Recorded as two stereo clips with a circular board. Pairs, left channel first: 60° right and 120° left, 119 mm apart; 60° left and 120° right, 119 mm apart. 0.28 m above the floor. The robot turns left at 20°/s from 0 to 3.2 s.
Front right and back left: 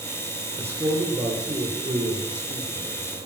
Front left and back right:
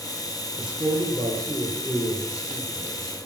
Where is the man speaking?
170° right, 5 m; by 3.2 s 140° left, 5 m.